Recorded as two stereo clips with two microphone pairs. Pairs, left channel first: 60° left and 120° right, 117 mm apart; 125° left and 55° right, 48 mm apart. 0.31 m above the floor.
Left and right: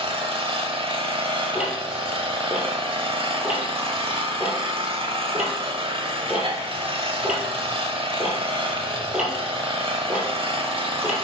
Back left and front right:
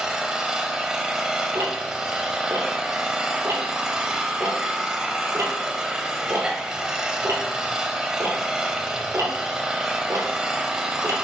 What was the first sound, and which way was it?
An engine running, 130° right.